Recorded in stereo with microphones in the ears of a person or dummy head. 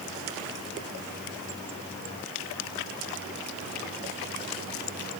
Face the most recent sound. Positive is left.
No sound to turn to.